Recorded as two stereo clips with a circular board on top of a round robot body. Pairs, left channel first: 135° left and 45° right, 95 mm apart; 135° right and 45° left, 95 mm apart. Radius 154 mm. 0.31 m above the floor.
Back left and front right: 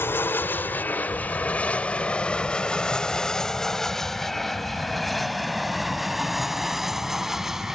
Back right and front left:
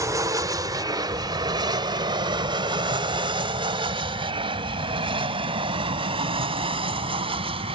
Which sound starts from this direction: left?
An aircraft, at 0.0 s.